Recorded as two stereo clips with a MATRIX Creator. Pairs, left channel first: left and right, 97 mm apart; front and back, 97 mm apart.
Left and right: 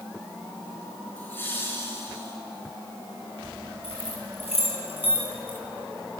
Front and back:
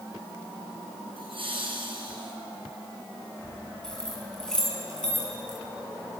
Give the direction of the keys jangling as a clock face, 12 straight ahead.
9 o'clock.